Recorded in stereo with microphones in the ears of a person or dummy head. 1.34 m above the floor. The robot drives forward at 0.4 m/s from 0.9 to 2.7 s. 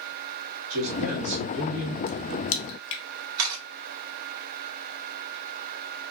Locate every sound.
0.7 s a man speaking: 85° right, 1.6 m; by 2.0 s 80° right, 1.6 m
2.1 s a crack: 70° left (ahead or behind), 0.5 m; by 3.0 s 65° left (ahead or behind), 0.6 m
3.4 s a camera shutter: 80° right, 1.6 m